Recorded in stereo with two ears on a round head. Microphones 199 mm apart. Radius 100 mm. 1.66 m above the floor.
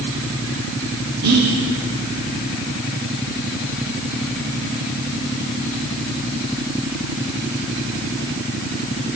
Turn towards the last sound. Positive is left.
turn(degrees=-85)